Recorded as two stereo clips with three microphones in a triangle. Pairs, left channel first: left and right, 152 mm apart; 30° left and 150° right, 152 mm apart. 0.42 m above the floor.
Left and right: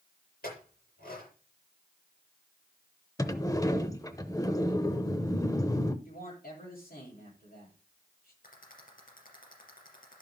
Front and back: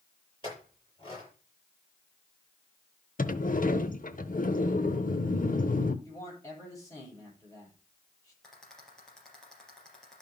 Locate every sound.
0.4 s a clink: 90° left, 7 m
3.2 s a sliding door: 25° left, 0.7 m
6.0 s a man speaking: 100° left, 9.5 m
8.4 s a rattle: 115° left, 4 m